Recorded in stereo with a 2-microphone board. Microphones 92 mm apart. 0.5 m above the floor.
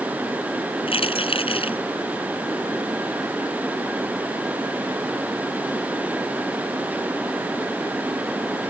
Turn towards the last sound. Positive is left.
turn(degrees=85)